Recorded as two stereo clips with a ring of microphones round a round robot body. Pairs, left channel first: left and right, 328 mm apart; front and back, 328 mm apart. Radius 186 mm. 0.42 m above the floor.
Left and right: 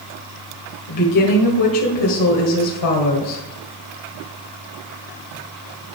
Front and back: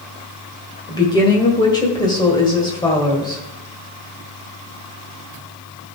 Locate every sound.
0.9 s a woman speaking: 75° left, 1.9 m